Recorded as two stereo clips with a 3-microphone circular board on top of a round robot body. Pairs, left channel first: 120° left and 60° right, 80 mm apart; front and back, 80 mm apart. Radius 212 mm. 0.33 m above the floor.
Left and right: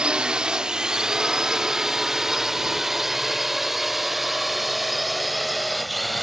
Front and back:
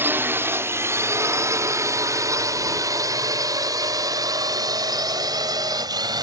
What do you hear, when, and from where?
0.0 s a drone: 135° right; by 6.2 s 150° right